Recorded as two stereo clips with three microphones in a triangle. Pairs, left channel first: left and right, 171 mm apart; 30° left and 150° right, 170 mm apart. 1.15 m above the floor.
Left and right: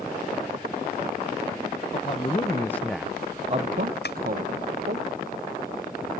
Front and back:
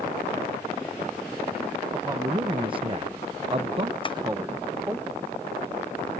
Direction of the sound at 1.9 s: 140° left.